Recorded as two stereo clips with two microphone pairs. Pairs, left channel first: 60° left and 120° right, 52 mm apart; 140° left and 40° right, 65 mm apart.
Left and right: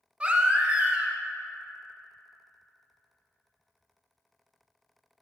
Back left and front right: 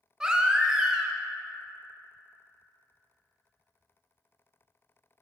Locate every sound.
0.2 s a baby crying: 100° right, 0.7 m